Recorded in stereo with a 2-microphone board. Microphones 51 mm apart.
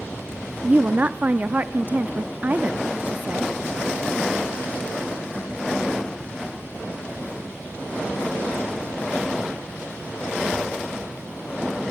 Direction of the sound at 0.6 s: 35° right (ahead or behind).